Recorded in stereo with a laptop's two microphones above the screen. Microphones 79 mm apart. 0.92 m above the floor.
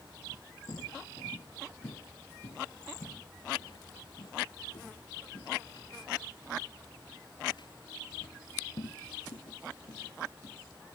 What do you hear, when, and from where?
0.7 s footsteps: 55° left (ahead or behind); by 10.6 s 65° left (ahead or behind)